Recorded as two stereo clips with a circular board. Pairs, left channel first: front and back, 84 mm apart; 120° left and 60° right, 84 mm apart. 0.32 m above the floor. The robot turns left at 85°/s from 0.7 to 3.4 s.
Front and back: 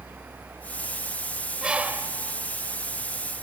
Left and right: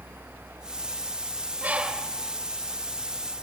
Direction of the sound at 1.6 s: 105° right.